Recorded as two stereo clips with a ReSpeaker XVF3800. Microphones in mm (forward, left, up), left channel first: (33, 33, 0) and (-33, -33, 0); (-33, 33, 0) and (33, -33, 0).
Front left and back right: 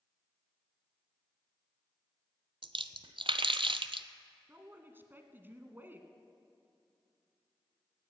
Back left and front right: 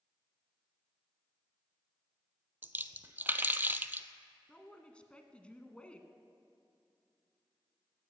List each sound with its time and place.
2.6 s a splash: 115° right, 0.7 m
4.5 s a man speaking: 165° right, 1.4 m